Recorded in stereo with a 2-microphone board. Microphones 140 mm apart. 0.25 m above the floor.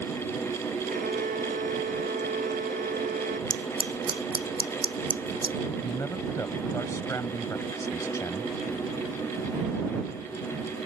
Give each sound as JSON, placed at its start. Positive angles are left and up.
{"t": 0.9, "sound": "a violin", "side_deg": -85}
{"t": 3.5, "sound": "scissors", "side_deg": -40}
{"t": 5.8, "sound": "a man speaking", "side_deg": 25}